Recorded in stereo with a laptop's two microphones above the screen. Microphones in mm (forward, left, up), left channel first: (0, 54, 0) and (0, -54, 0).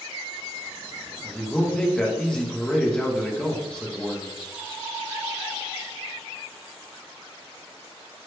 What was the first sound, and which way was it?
A man speaking, 10° left (ahead or behind).